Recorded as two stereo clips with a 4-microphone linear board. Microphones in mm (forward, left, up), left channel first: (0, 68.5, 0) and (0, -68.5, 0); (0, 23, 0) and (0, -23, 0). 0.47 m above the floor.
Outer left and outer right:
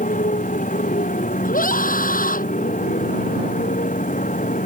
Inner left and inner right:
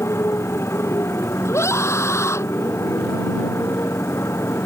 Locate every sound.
0.0 s a motorcycle: 70° left (ahead or behind)
1.4 s a scream: 85° left